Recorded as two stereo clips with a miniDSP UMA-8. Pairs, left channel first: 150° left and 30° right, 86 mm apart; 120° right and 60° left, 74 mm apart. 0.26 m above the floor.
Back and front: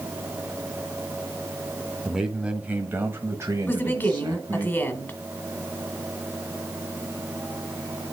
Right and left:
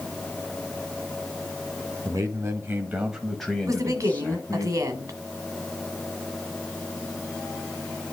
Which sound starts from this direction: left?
A woman speaking, at 3.7 s.